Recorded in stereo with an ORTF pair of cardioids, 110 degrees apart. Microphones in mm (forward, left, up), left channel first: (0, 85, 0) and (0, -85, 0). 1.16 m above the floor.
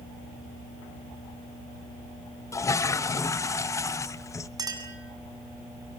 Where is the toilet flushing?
20° left, 0.8 m.